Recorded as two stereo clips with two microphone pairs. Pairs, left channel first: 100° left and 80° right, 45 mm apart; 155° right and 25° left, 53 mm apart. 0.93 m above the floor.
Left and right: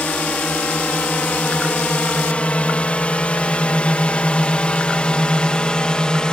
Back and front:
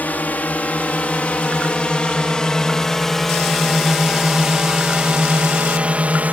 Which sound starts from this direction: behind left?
A drone, at 0.0 s.